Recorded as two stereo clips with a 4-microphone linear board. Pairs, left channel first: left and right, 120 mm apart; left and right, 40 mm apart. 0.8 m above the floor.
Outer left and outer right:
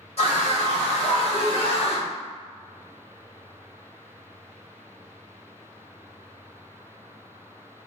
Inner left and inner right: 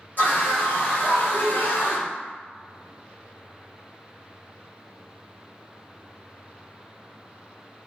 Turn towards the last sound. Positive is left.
turn(degrees=50)  # may be behind; listen again after turning